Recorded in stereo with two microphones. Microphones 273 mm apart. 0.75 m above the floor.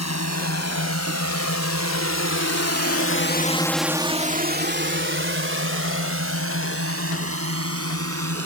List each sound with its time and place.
0.0 s a drone: 70° left (ahead or behind); by 8.5 s 60° right (ahead or behind)